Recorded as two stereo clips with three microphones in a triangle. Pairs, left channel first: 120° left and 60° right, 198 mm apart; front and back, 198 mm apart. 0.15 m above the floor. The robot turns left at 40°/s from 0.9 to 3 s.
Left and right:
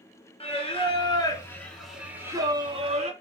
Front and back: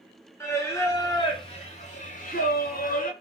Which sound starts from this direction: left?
Singing, at 0.4 s.